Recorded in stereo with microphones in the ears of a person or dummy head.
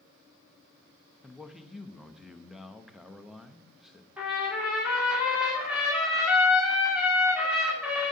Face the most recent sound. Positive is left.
turn(degrees=-5)  # may be behind; listen again after turning